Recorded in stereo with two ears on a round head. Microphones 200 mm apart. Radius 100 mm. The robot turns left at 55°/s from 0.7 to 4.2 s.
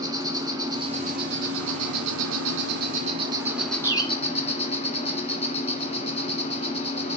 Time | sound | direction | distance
0.0 | an insect | 15° right | 1.6 m
3.8 | a bird | 10° right (ahead or behind) | 0.8 m